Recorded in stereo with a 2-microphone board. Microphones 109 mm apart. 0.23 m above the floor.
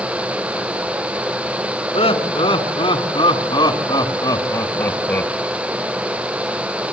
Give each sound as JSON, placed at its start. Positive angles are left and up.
{"t": 1.9, "sound": "laughter", "side_deg": 55, "distance_m": 2.5}